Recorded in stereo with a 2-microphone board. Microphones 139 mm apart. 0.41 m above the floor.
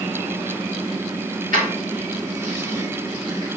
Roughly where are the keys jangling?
Right.